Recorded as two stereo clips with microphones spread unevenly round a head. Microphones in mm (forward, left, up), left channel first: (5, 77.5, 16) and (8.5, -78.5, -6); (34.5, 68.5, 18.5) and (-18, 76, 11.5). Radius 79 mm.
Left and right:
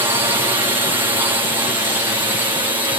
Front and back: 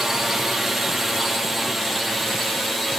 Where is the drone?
115° right; by 3.0 s 105° right.